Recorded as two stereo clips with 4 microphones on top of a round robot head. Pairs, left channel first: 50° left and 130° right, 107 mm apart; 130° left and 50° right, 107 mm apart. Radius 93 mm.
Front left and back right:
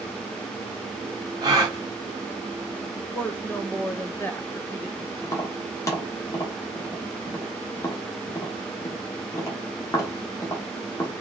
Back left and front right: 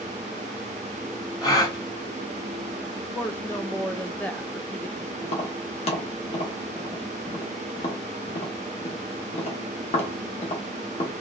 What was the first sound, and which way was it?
A gasp, 175° right.